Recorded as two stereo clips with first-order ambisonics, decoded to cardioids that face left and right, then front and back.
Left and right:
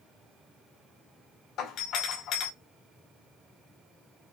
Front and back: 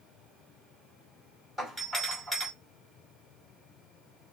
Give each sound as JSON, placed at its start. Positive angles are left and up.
{"t": 1.6, "sound": "a doorbell", "azimuth_deg": 90, "distance_m": 2.5}